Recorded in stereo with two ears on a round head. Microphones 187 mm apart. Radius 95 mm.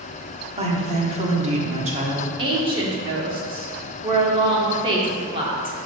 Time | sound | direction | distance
0.6 | a woman speaking | 30° right (ahead or behind) | 1.1 m
2.4 | a woman speaking | 25° right (ahead or behind) | 1.3 m